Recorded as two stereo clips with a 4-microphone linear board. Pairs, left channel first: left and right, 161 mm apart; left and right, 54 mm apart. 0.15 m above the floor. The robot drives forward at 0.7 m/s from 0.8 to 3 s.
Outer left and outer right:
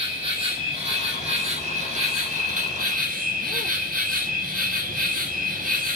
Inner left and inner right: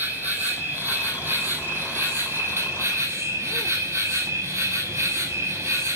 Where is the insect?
35° right (ahead or behind), 3.5 m; by 6.0 s 55° right (ahead or behind), 2.5 m.